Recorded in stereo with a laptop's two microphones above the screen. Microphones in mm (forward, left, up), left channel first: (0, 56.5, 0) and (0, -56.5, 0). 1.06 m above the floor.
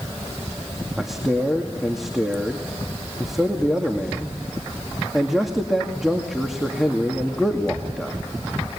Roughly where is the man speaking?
Centre.